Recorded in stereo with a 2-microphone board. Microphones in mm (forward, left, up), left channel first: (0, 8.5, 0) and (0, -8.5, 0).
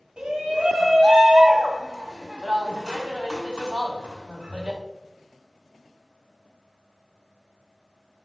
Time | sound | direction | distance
0.2 | a shout | 60° right (ahead or behind) | 2 m